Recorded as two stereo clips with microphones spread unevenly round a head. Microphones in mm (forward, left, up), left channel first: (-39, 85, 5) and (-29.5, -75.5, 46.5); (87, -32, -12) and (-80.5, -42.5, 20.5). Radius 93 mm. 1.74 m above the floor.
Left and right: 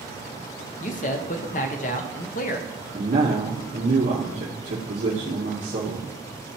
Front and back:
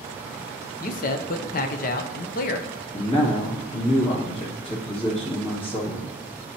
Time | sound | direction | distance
0.8 | a man speaking | 40° left | 0.6 m
2.9 | a man speaking | 50° right | 2.5 m